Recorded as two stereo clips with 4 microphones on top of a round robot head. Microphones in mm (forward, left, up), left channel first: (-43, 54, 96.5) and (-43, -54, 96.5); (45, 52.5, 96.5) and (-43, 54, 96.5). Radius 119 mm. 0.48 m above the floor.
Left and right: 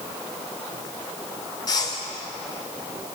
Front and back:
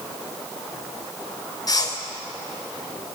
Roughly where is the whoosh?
Ahead left.